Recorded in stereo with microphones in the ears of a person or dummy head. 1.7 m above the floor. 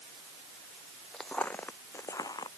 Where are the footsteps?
Centre (ahead or behind); by 2.5 s 15° left (ahead or behind).